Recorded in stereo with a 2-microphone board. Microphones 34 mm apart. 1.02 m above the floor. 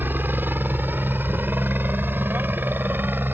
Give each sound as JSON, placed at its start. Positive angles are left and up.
{"t": 0.0, "sound": "a helicopter", "side_deg": -65}